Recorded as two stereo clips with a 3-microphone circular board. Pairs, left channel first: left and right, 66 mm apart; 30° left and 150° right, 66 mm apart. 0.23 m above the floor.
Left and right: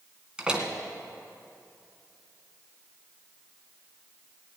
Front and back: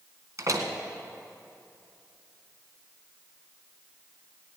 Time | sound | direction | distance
0.4 | a door slam | 165° right | 1.8 m